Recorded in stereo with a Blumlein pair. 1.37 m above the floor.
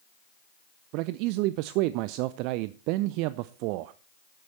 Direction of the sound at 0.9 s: 45° right.